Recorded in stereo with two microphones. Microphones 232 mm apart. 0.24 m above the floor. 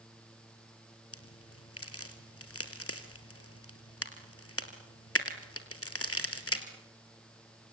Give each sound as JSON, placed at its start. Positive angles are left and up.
{"t": 1.1, "sound": "a crack", "side_deg": 75, "distance_m": 2.5}